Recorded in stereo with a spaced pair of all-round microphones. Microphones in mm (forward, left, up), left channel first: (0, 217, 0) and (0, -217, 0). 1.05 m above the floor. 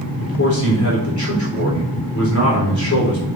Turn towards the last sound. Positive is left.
turn(degrees=40)  # may be behind; listen again after turning